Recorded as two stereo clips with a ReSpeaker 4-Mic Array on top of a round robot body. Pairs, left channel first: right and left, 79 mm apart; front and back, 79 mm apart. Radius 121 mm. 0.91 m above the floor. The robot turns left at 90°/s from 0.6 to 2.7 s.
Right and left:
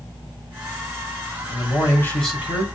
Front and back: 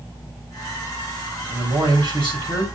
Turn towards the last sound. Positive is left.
turn(degrees=145)